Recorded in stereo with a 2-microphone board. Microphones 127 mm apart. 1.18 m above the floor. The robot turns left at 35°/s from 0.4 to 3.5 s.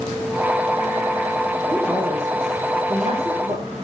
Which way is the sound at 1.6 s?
Straight ahead.